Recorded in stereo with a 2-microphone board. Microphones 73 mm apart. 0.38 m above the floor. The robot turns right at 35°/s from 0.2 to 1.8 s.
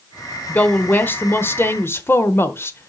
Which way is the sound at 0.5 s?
40° left.